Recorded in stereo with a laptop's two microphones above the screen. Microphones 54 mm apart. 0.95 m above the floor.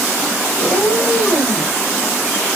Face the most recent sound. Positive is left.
turn(degrees=75)  # may be behind; listen again after turning